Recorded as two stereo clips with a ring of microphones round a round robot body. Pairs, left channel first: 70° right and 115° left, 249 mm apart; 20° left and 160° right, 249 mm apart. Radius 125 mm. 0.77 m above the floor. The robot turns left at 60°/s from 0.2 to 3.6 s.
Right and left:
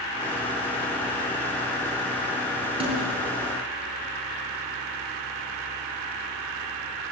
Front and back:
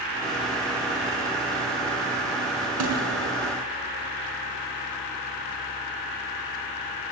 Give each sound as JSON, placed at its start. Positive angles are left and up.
{"t": 2.8, "sound": "a snare drum", "azimuth_deg": 180, "distance_m": 5.0}